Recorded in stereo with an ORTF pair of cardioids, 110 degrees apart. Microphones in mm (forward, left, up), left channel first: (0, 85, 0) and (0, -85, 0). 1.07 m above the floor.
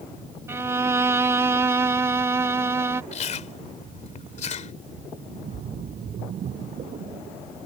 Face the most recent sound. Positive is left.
turn(degrees=-50)